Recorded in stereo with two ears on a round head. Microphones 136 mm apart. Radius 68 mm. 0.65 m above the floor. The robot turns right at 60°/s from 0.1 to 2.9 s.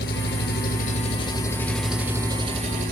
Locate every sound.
0.0 s an engine running: 75° left, 1.4 m; by 2.9 s 115° right, 1.4 m